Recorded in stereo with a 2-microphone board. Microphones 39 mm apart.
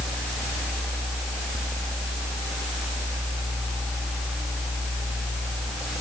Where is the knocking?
I don't hear knocking.